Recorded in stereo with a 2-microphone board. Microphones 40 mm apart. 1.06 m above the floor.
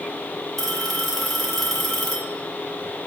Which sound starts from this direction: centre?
A phone ringing, at 0.6 s.